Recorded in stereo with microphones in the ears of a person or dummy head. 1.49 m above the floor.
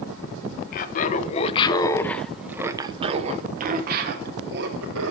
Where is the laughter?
45° left (ahead or behind), 1.1 m; by 5.1 s 70° right (ahead or behind), 1.6 m.